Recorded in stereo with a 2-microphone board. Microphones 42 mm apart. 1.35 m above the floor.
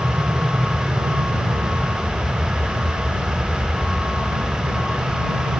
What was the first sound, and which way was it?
An aircraft, 50° right (ahead or behind).